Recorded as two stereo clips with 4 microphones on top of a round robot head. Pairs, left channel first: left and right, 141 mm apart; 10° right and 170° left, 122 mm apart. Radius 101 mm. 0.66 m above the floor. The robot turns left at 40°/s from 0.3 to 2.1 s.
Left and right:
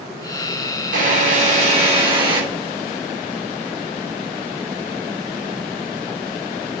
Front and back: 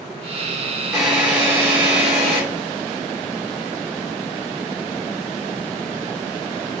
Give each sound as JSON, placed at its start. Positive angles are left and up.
{"t": 0.9, "sound": "a drill", "azimuth_deg": -95, "distance_m": 3.0}